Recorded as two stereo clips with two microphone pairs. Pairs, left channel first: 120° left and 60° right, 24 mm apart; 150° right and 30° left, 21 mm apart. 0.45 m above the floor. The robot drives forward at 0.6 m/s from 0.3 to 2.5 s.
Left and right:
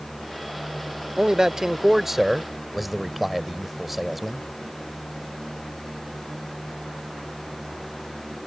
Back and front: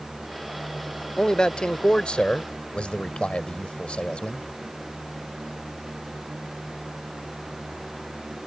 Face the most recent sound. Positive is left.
turn(degrees=-145)